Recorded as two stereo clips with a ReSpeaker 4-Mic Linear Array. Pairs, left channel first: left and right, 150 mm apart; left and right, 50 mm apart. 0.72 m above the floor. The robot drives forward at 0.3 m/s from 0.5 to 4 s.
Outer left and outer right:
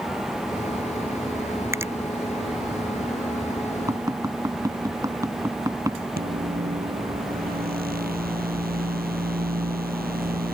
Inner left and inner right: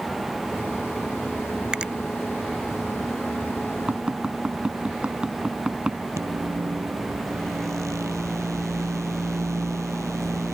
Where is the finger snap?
20° right (ahead or behind); by 1.9 s 15° right (ahead or behind).